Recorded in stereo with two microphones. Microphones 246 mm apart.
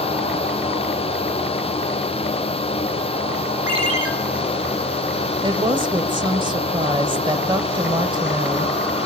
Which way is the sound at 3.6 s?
75° right (ahead or behind).